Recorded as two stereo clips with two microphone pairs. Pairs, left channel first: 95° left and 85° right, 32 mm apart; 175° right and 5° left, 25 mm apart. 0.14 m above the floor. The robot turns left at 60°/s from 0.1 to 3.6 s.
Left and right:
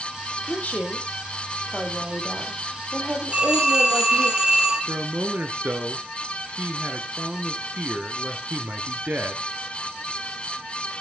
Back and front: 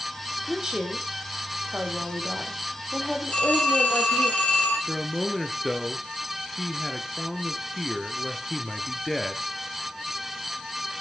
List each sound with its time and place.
0.5 s a woman speaking: 75° left, 5 m; by 4.3 s 110° right, 5 m
3.3 s a phone ringing: 130° right, 3.5 m; by 4.8 s 150° right, 3.5 m
4.9 s a man speaking: 90° right, 2.0 m